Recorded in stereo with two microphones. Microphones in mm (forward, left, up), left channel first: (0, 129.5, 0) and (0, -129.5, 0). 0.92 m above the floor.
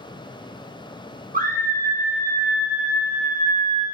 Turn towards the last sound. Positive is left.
turn(degrees=-30)  # may be behind; listen again after turning